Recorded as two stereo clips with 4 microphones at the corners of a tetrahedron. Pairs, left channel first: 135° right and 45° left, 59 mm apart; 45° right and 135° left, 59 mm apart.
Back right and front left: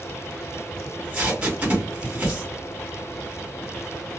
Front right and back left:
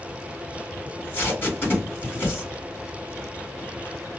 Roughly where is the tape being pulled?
Ahead.